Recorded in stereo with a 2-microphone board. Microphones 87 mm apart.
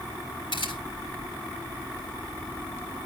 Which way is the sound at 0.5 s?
80° left.